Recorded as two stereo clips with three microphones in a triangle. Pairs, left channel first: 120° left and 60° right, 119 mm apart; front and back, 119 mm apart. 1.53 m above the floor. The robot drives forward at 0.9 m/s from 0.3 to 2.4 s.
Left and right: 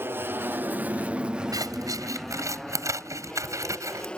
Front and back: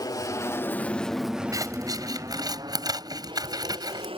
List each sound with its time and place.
0.0 s an aircraft: 5° right; by 4.2 s 160° right
1.5 s scissors: 120° right; by 4.1 s 125° right